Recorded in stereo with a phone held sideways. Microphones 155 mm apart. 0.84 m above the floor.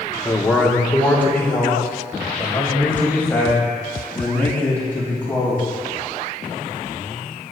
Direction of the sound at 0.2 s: 10° left (ahead or behind).